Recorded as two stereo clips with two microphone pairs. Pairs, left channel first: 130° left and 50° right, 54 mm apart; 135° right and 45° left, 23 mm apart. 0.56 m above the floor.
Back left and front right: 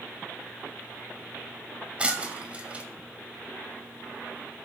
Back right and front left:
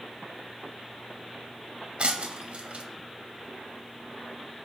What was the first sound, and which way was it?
Breaking glass, 20° left.